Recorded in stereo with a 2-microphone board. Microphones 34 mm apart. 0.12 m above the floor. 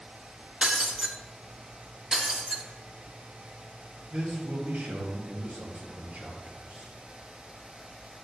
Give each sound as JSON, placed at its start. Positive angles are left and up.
{"t": 0.6, "sound": "breaking glass", "side_deg": -25, "distance_m": 0.7}
{"t": 2.1, "sound": "breaking glass", "side_deg": -25, "distance_m": 1.5}
{"t": 4.1, "sound": "a man speaking", "side_deg": -40, "distance_m": 2.5}